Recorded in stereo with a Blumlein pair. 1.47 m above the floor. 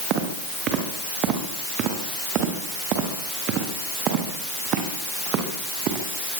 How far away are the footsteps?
About 8.5 m.